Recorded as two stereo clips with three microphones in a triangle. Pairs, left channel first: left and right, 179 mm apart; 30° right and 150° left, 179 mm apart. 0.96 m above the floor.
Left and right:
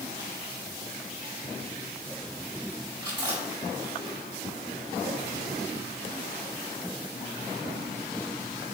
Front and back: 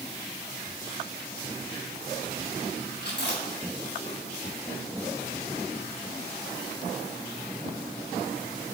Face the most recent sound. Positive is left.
turn(degrees=-25)